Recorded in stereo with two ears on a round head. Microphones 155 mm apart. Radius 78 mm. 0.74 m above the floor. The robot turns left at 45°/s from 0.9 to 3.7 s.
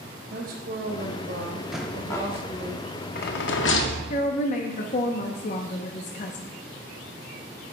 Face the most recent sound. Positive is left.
turn(degrees=45)  # may be behind; listen again after turning